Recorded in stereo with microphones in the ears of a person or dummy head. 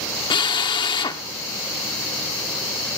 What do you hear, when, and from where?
0.3 s a drill: 25° left (ahead or behind), 0.9 m